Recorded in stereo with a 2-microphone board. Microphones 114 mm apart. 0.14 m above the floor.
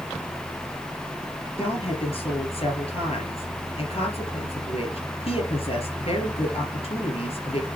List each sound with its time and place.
1.6 s a woman speaking: 60° left (ahead or behind), 3 m